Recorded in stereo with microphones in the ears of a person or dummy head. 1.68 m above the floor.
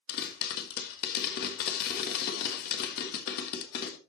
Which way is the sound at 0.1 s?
55° left (ahead or behind).